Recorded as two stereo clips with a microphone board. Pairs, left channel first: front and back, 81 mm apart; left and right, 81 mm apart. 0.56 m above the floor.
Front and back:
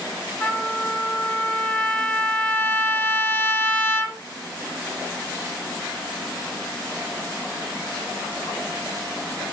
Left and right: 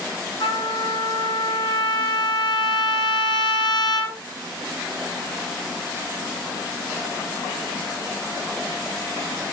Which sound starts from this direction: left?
A trumpet, at 0.4 s.